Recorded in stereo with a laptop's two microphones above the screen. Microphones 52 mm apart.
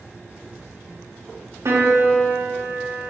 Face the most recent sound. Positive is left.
turn(degrees=-70)  # may be behind; listen again after turning